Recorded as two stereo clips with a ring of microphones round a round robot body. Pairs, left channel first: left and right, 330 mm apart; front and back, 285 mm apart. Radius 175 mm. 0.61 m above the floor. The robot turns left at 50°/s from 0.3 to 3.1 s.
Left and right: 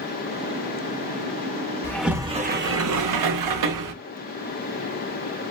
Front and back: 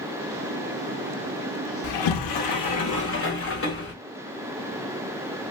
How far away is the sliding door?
About 0.6 m.